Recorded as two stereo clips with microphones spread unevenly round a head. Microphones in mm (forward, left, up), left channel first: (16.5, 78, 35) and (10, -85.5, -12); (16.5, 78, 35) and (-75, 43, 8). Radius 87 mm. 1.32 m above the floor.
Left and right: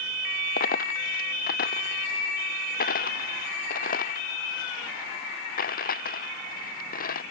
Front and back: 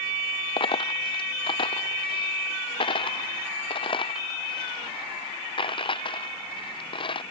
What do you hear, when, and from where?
0.6 s a dropped coin: 50° left